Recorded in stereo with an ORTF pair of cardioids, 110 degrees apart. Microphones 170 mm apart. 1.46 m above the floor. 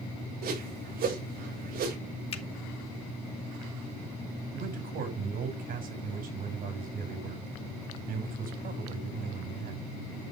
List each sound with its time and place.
0.4 s a whoosh: 65° right, 7 m
2.3 s a finger snap: 35° left, 2.5 m
4.5 s a man speaking: 60° right, 6.5 m